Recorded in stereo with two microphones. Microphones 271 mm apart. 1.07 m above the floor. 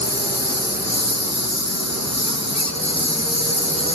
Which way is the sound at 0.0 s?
70° left (ahead or behind).